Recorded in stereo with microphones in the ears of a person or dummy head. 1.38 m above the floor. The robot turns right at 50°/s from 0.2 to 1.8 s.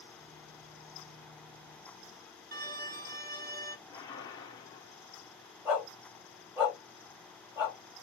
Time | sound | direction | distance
2.5 | a violin | 45° right (ahead or behind) | 1.0 m
3.9 | a whoosh | 15° left (ahead or behind) | 1.3 m
5.7 | a dog barking | 10° right (ahead or behind) | 2.5 m